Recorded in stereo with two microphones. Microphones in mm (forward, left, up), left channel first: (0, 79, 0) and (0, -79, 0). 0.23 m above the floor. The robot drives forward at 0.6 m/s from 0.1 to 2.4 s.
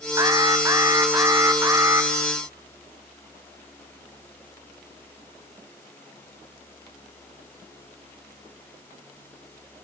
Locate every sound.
0.2 s an alarm: 25° right (ahead or behind), 2 m; by 2.1 s 15° right (ahead or behind), 2.5 m